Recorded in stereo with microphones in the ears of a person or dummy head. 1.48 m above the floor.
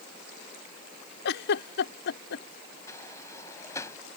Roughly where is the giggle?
Left.